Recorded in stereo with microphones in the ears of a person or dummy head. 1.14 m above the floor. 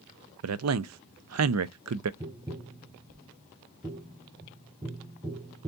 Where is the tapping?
20° right (ahead or behind), 0.8 m.